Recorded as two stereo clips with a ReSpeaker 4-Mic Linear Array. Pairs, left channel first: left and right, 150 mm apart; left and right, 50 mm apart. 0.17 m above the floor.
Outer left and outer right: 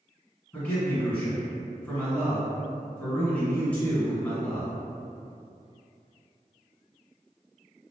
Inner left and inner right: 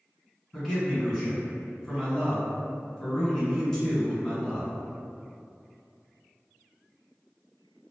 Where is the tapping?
No tapping in this recording.